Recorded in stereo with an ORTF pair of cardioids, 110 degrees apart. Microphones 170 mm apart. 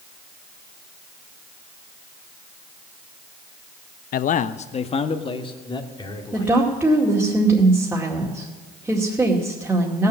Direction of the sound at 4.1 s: 55° left.